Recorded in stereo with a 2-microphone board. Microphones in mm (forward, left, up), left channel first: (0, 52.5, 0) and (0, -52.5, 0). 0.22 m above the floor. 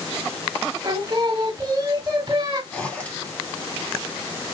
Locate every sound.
0.8 s singing: 35° right (ahead or behind), 1.2 m
2.7 s a zipper: 15° left (ahead or behind), 1.4 m